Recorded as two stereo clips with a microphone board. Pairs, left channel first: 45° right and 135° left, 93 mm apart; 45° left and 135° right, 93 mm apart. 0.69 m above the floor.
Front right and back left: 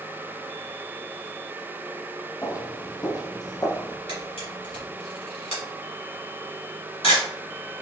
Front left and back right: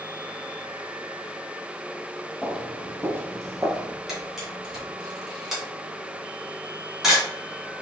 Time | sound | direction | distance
2.4 | footsteps | 50° right | 0.8 m
4.1 | a camera shutter | 50° right | 1.9 m